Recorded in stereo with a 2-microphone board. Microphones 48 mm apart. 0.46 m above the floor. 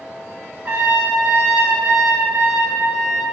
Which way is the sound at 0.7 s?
35° right (ahead or behind).